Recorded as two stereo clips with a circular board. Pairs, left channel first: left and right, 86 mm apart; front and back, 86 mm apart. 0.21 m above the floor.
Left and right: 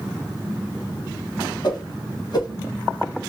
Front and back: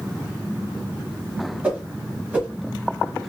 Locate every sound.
1.6 s a whoosh: 110° left, 1.1 m